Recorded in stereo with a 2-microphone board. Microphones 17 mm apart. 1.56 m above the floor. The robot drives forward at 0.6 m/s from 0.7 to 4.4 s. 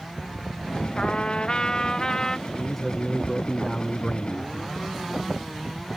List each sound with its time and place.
1.0 s a trumpet: 55° left (ahead or behind); by 2.4 s 30° left (ahead or behind)
2.5 s a man speaking: 30° left (ahead or behind); by 4.8 s 70° left (ahead or behind)